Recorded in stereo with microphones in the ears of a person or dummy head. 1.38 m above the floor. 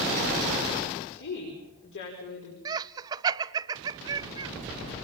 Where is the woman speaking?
65° left (ahead or behind), 4.5 m.